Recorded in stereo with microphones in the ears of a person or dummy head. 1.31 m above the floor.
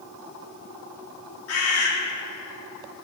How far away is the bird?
About 2.5 m.